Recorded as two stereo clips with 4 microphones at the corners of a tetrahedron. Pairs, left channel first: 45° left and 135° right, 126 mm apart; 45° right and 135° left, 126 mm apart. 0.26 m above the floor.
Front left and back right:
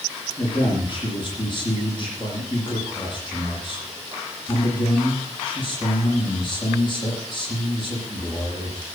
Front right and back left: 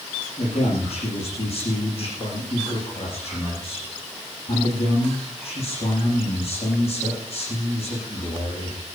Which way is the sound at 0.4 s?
5° right.